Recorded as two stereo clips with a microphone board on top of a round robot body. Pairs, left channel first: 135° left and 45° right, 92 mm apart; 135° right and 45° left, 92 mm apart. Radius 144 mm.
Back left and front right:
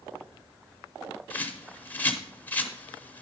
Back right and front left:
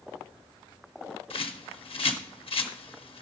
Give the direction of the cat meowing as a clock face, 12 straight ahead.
I don't hear a cat meowing.